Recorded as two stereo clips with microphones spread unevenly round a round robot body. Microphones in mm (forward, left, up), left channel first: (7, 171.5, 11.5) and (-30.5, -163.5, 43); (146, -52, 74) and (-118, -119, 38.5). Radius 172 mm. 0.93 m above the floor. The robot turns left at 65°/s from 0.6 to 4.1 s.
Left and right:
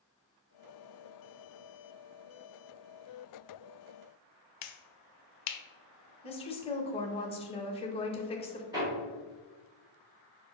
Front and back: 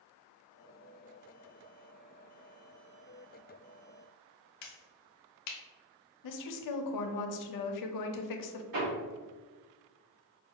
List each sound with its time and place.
4.6 s a finger snap: 60° left, 0.5 m
6.2 s a woman speaking: 15° left, 0.6 m
8.7 s hammering: 175° right, 1.9 m